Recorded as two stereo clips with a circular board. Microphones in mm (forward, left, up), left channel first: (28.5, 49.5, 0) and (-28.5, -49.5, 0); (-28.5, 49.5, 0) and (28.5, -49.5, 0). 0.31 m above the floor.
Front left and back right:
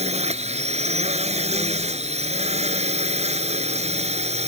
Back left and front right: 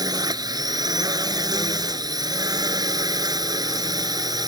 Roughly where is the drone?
Behind right.